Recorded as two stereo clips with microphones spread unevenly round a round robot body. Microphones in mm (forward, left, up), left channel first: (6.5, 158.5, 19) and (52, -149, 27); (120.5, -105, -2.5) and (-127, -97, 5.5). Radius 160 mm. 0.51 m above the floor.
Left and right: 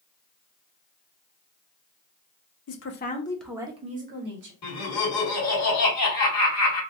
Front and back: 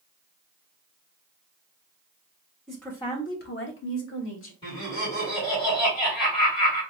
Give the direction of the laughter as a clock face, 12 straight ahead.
10 o'clock.